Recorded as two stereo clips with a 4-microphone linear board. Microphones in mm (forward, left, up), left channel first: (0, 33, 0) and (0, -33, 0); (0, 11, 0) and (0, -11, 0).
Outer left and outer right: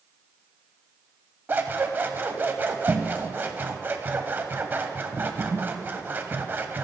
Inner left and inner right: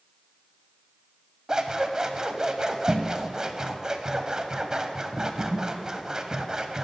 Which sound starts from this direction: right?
Scissors, at 1.5 s.